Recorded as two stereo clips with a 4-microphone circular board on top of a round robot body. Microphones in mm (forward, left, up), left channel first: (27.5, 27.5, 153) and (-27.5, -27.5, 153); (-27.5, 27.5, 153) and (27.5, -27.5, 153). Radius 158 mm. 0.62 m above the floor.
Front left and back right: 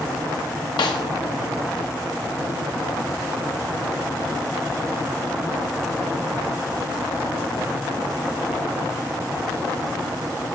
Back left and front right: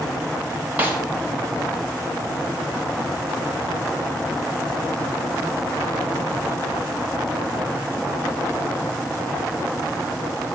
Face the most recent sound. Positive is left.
turn(degrees=25)